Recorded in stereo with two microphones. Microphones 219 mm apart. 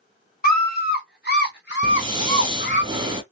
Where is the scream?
45° left (ahead or behind), 2 m; by 2.8 s 55° left (ahead or behind), 2 m.